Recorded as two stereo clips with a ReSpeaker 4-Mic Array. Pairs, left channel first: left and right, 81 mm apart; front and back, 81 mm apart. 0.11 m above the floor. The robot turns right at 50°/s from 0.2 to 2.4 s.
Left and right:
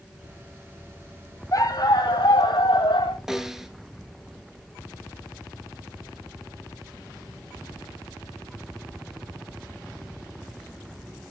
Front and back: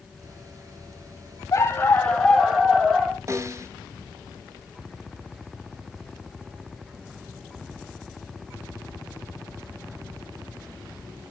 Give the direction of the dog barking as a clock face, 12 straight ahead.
10 o'clock.